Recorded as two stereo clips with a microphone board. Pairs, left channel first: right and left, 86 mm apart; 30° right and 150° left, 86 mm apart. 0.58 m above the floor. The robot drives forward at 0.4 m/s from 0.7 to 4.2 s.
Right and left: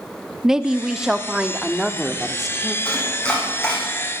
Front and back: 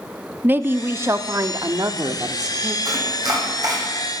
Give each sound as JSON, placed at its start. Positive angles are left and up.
{"t": 0.4, "sound": "a woman speaking", "azimuth_deg": 165, "distance_m": 0.7}
{"t": 2.9, "sound": "chopping", "azimuth_deg": -170, "distance_m": 4.5}